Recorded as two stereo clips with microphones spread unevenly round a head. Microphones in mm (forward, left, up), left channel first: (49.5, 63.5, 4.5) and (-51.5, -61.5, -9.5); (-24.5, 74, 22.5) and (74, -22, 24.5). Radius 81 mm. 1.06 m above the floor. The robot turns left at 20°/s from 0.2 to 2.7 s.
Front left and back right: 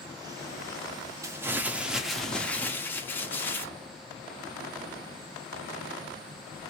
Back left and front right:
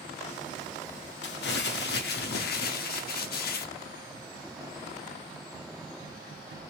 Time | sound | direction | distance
1.2 | crumpling | 160° left | 0.8 m